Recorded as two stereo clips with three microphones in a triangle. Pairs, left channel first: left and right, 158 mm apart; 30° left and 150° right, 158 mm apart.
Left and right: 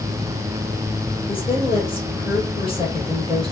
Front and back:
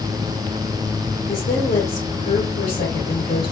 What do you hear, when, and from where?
1.3 s a woman speaking: 40° left, 2.5 m